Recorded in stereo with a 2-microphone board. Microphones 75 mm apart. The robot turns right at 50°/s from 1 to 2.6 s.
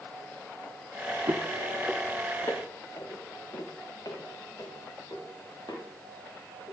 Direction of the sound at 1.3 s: 40° right (ahead or behind).